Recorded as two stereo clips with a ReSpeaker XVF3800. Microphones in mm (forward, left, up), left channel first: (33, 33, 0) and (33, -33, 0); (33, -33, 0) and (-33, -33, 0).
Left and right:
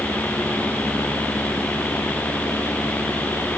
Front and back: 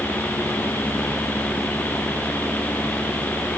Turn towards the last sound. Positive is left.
No sound to turn to.